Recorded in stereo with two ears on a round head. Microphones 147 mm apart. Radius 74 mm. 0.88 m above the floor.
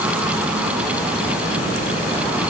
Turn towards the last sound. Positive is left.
No sound to turn to.